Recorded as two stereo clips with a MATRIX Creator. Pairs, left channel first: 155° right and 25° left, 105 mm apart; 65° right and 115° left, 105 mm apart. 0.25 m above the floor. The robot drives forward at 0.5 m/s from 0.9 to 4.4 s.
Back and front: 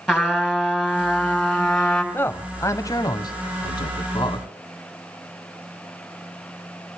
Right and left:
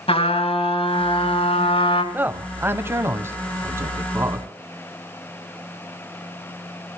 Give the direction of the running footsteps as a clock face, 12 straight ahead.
No running footsteps in this recording.